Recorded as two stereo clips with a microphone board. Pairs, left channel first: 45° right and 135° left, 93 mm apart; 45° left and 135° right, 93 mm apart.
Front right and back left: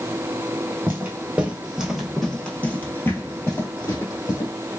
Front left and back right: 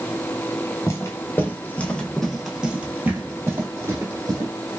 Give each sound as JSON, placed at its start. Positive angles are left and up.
{"t": 0.9, "sound": "footsteps", "azimuth_deg": 80, "distance_m": 1.3}